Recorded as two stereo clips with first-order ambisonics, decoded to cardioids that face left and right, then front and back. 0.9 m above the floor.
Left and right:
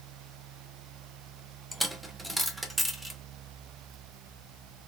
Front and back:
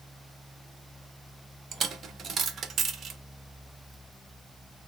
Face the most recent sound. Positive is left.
turn(degrees=-165)